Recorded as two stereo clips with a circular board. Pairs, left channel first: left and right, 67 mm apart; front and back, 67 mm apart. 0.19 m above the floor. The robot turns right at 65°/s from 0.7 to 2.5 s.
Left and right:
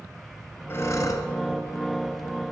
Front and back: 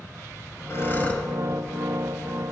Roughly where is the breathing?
Ahead left.